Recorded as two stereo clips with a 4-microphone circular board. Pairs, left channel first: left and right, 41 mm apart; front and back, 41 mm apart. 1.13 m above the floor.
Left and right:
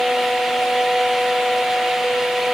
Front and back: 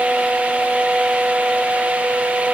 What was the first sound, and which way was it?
Only background noise.